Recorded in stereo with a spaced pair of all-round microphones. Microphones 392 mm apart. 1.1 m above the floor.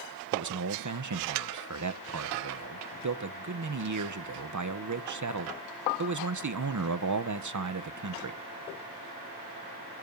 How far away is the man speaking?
About 0.7 m.